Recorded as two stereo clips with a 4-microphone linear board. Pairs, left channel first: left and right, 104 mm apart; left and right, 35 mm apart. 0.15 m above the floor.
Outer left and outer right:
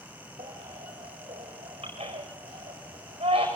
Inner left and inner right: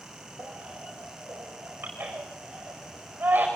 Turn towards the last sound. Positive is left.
turn(degrees=-65)  # may be behind; listen again after turning